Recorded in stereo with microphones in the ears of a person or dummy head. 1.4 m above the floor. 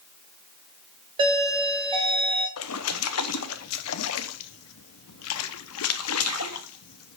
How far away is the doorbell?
About 1.9 m.